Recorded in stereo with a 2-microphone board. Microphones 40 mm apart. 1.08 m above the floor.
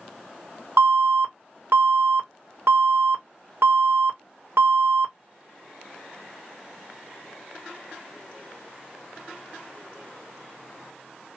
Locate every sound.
0.8 s an alarm: 70° right (ahead or behind), 1.5 m